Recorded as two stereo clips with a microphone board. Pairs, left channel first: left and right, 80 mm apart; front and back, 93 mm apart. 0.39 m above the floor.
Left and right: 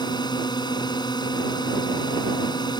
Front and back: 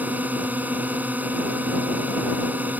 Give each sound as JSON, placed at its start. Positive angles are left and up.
{"t": 0.0, "sound": "a drone", "azimuth_deg": 110}